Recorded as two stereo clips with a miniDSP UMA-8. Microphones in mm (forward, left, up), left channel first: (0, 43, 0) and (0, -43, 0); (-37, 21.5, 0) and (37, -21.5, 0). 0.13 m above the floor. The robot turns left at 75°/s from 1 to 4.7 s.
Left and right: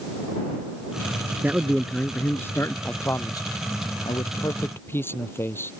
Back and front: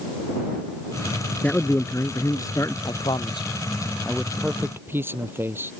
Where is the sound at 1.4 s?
145° right; by 2.8 s 115° left.